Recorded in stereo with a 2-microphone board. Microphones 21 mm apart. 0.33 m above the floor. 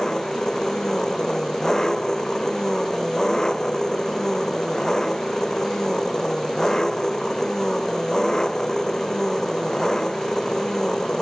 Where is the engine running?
25° left (ahead or behind).